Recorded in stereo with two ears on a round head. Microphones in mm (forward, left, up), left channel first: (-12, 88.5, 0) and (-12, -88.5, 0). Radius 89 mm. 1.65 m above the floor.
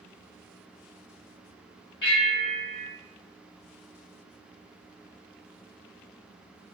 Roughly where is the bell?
Left.